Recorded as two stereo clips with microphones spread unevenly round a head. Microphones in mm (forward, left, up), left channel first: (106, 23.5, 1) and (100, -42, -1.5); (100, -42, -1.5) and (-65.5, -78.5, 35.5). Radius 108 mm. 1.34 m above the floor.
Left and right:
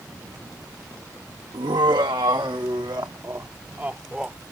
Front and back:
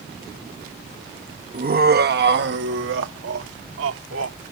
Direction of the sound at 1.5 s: 130° right.